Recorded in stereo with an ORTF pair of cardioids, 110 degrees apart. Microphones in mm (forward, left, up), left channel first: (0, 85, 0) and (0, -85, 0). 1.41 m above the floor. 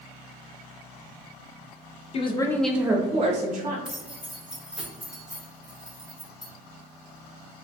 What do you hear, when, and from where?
2.1 s a woman speaking: 35° left, 0.6 m; by 3.8 s 55° right, 0.9 m
3.9 s keys jangling: 5° right, 0.8 m